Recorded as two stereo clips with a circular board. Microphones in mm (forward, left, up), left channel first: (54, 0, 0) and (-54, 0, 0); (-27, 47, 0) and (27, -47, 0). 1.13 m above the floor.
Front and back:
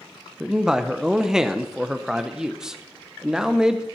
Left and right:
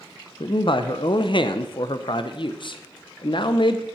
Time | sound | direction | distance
0.4 | a man speaking | 95° left | 0.5 m